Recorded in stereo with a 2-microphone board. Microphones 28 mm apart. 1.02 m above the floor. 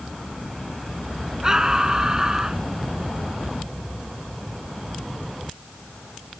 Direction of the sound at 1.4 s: 20° right (ahead or behind).